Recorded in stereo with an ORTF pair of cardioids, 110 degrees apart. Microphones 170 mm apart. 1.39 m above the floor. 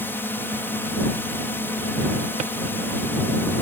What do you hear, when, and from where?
0.0 s a drone: 15° left
2.4 s a drawer: 45° right